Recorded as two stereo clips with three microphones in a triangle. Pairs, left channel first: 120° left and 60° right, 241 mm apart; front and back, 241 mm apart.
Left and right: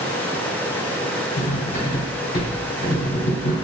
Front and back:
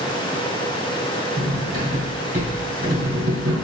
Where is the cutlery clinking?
140° left, 2.0 m.